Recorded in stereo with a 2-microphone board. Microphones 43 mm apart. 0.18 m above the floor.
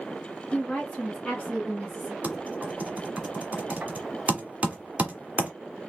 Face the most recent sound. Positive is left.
turn(degrees=-35)  # may be behind; listen again after turning